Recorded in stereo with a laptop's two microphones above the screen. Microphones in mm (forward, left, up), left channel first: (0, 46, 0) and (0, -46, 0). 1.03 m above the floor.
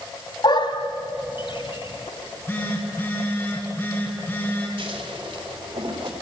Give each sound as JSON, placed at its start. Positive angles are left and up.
{"t": 0.4, "sound": "a dog barking", "side_deg": 60, "distance_m": 1.6}
{"t": 2.2, "sound": "a phone buzzing", "side_deg": 20, "distance_m": 7.0}
{"t": 4.8, "sound": "scissors", "side_deg": -80, "distance_m": 3.5}